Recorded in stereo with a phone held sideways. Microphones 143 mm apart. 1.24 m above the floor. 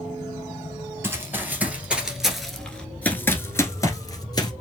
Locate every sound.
1.0 s running footsteps: 15° right (ahead or behind), 1.6 m; by 4.5 s 30° left (ahead or behind), 1.4 m